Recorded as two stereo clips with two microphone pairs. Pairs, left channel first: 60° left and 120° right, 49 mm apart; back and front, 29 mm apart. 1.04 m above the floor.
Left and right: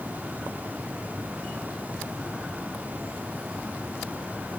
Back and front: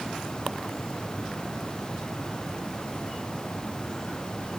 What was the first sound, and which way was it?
Only background noise.